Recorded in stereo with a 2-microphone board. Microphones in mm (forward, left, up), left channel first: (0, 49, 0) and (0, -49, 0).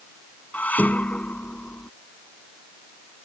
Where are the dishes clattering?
15° left (ahead or behind).